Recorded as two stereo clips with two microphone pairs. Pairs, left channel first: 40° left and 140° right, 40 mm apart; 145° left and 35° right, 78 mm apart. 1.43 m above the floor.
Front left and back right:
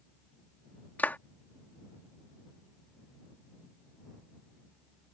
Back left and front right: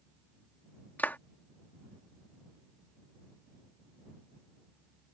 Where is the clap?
80° left.